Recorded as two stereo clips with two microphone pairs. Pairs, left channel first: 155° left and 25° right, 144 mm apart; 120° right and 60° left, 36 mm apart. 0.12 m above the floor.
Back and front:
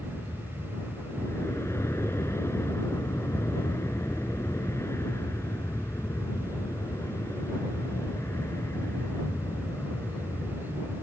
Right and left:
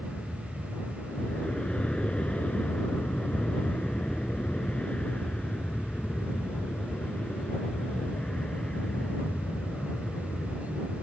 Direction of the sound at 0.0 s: 150° right.